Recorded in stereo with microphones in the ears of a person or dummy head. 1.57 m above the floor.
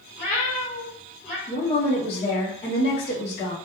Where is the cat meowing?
45° left (ahead or behind), 1.5 m; by 1.4 s centre (ahead or behind), 1.5 m.